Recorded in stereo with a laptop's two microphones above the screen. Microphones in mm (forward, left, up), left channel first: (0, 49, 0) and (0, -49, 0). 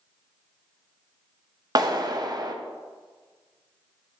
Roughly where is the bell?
No bell in this recording.